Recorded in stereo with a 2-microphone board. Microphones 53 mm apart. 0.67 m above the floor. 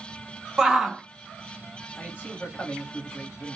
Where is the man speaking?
40° left (ahead or behind), 1.2 m.